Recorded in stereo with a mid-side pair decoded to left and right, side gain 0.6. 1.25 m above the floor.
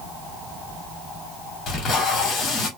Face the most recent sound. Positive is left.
turn(degrees=50)